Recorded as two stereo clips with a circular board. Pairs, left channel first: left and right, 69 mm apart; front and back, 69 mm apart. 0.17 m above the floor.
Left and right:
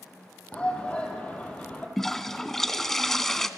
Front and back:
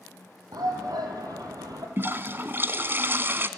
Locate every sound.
0.5 s a shout: 160° left, 6 m
2.0 s a toilet flushing: 170° left, 1.1 m